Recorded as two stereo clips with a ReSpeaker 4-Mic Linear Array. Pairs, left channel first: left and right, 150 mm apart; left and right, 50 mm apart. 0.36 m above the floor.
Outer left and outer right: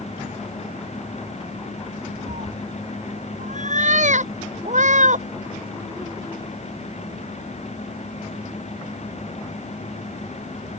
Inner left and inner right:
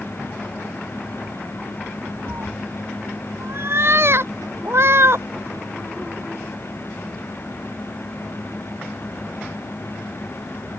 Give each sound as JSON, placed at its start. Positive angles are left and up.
{"t": 2.3, "sound": "a cat meowing", "side_deg": -55}